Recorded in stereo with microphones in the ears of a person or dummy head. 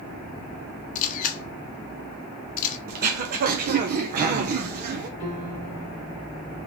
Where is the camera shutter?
45° left (ahead or behind), 1.2 m.